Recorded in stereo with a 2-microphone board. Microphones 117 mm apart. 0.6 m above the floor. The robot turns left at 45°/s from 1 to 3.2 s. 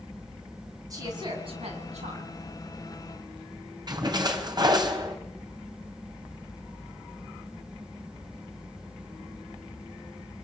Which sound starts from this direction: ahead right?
A woman speaking, at 0.9 s.